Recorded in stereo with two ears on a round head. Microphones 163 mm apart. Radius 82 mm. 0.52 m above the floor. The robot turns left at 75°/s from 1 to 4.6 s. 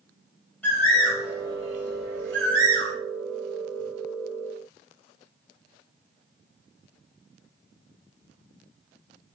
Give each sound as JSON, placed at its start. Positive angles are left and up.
{"t": 0.6, "sound": "a bird", "side_deg": 10, "distance_m": 1.4}